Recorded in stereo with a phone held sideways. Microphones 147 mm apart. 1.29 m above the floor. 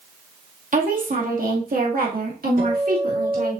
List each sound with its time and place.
0.7 s a woman speaking: 65° right (ahead or behind), 2.5 m; by 3.6 s 80° right, 3 m
2.6 s a guitar: 75° right (ahead or behind), 3.5 m